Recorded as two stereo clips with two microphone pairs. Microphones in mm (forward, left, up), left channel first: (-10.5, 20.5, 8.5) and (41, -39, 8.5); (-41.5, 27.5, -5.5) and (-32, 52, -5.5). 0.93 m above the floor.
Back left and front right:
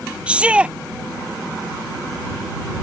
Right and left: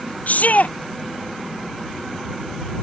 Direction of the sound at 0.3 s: 125° right.